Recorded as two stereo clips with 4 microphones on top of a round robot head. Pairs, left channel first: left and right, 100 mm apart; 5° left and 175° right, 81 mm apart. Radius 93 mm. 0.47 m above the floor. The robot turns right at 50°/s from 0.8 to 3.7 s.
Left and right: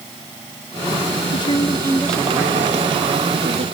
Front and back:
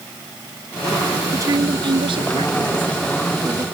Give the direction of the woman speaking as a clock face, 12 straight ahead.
8 o'clock.